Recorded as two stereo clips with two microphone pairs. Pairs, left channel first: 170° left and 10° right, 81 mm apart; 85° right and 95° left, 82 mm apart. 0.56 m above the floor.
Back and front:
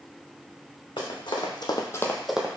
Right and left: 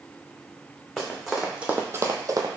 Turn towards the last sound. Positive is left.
turn(degrees=60)